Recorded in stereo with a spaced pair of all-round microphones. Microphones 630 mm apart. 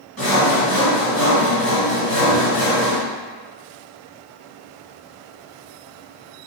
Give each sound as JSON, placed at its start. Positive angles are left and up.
{"t": 0.2, "sound": "sawing", "side_deg": -10, "distance_m": 1.7}